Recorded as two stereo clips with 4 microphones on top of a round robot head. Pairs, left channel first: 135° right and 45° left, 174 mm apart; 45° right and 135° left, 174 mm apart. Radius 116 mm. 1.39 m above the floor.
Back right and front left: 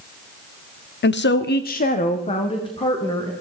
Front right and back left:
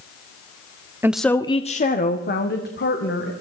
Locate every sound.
1.0 s a woman speaking: 150° right, 0.7 m; by 3.3 s 65° right, 2 m